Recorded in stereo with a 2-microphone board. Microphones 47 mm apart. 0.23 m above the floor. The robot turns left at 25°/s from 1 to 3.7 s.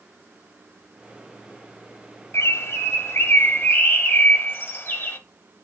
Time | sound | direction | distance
2.3 | a bird | 90° left | 1.1 m